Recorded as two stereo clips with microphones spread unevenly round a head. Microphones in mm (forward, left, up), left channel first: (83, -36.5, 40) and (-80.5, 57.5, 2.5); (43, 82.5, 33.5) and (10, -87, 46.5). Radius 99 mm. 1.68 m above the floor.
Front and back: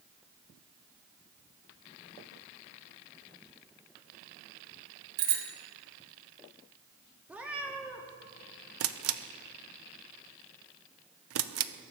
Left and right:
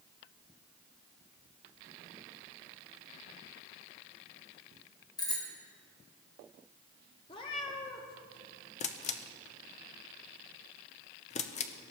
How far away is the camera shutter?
About 0.7 m.